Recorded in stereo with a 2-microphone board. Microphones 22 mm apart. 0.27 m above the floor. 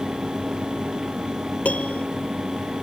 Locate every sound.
1.6 s a piano: 80° left